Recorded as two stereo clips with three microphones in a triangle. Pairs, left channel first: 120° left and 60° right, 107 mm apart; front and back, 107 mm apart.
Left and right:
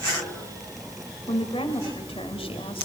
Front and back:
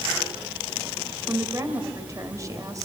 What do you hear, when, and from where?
1.3 s a woman speaking: 125° left, 3 m